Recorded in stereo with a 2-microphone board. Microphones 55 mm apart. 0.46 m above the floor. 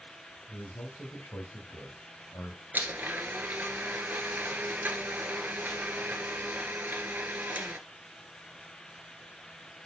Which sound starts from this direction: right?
A blender, at 2.7 s.